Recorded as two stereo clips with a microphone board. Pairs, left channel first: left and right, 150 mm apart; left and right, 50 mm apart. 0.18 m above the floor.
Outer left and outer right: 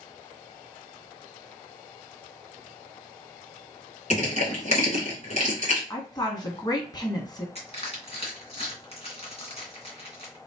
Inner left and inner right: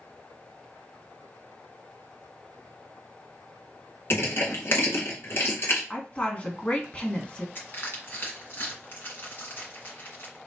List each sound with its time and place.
4.1 s crushing: 50° left (ahead or behind), 2.5 m
5.9 s a woman speaking: 30° left (ahead or behind), 1.4 m
7.5 s crushing: 45° left (ahead or behind), 2 m